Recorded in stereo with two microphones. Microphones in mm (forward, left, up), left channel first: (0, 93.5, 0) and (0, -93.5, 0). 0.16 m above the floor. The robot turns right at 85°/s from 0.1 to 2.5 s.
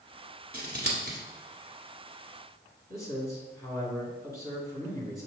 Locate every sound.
0.5 s scissors: 55° right (ahead or behind), 1.2 m; by 1.2 s 50° right (ahead or behind), 1.2 m
2.9 s a man speaking: 15° left (ahead or behind), 1.7 m